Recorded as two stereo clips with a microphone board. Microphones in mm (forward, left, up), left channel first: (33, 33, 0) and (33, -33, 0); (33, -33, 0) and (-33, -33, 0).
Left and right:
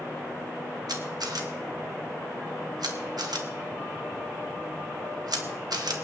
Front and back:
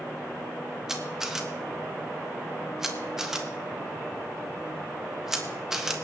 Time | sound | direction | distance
0.9 | a camera shutter | 95° right | 1.5 m